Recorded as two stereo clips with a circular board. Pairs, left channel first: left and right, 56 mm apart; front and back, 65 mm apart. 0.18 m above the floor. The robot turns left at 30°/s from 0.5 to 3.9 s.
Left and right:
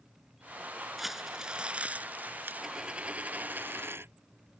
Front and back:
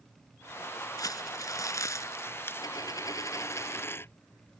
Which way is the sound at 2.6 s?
10° right.